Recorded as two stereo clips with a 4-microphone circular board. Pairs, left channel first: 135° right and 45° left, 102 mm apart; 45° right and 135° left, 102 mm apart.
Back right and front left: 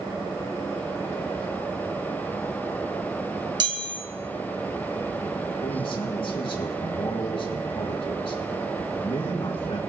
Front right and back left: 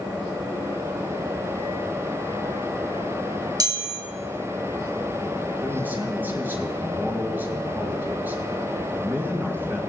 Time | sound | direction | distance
3.6 | a chime | 85° left | 2 m
5.6 | a man speaking | 155° right | 3.5 m